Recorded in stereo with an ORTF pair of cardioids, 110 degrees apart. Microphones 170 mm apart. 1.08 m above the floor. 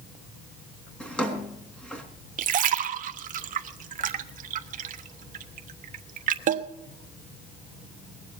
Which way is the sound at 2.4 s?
50° right.